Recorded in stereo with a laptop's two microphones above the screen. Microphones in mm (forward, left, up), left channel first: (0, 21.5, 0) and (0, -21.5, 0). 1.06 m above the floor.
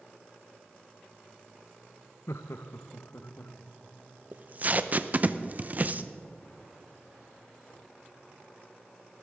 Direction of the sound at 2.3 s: 80° left.